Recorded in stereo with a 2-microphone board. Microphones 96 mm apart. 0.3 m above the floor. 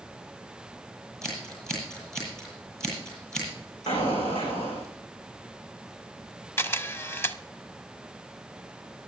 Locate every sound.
1.2 s scissors: 5° left (ahead or behind), 8.5 m
3.9 s an explosion: 80° left, 5 m
6.6 s a camera shutter: 25° left (ahead or behind), 0.7 m